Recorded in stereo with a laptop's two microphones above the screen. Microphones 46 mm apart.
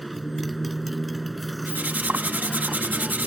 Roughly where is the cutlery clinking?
Right.